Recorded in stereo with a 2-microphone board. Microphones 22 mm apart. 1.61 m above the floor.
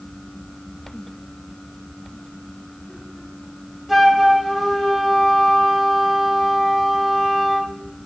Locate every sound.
3.9 s a flute: 5° right (ahead or behind), 0.7 m